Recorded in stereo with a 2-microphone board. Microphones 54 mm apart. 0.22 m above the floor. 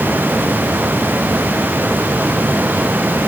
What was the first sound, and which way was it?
Only background noise.